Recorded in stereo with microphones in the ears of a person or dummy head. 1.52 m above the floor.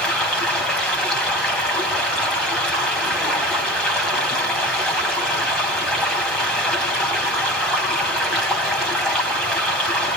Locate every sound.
0.0 s running water: 5° left (ahead or behind), 5 m